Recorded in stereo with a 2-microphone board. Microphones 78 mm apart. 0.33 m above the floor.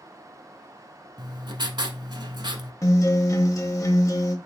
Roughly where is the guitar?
Left.